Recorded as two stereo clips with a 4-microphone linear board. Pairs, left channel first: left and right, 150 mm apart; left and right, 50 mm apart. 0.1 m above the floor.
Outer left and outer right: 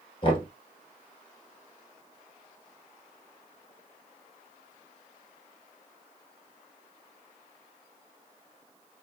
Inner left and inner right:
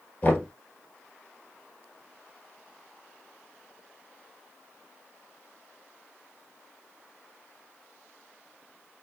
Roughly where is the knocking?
Left.